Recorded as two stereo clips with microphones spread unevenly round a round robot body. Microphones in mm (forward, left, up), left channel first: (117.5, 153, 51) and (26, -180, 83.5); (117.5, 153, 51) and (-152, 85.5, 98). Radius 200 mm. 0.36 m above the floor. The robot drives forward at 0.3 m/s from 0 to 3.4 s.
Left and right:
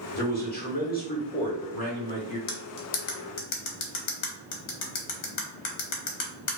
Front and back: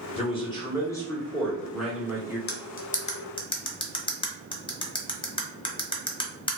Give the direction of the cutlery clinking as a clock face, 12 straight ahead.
10 o'clock.